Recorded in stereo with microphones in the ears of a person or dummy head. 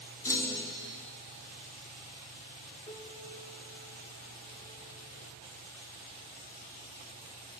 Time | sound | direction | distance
0.2 | a clunk | 20° left (ahead or behind) | 0.5 m
2.9 | a piano | 25° left (ahead or behind) | 1.0 m